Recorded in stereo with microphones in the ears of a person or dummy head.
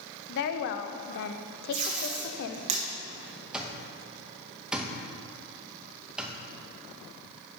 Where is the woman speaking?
65° left (ahead or behind), 0.6 m.